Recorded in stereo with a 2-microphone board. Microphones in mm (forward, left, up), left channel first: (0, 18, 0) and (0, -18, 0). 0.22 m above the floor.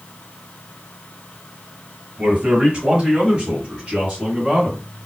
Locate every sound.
2.2 s a man speaking: 20° right (ahead or behind), 1.7 m; by 4.8 s 5° right (ahead or behind), 2 m